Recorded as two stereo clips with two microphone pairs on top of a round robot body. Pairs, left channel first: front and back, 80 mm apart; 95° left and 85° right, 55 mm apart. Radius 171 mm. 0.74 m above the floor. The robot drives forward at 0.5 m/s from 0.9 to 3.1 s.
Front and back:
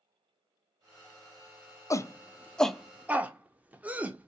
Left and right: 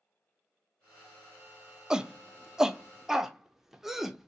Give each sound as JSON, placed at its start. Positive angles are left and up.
{"t": 1.9, "sound": "a shout", "azimuth_deg": -5, "distance_m": 0.7}